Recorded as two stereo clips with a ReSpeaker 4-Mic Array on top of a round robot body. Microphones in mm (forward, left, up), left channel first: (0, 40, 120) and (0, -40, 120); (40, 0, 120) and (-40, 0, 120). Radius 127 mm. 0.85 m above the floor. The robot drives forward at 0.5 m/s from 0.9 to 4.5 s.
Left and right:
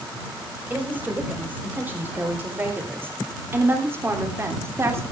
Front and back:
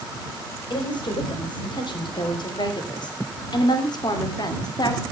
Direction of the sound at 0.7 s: 20° right.